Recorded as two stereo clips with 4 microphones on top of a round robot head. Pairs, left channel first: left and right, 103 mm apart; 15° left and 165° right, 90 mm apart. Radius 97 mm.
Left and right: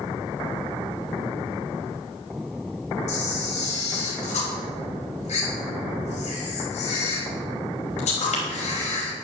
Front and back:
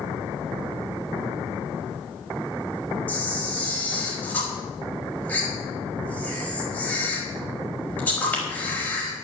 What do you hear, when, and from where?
3.1 s a camera shutter: 85° left, 4 m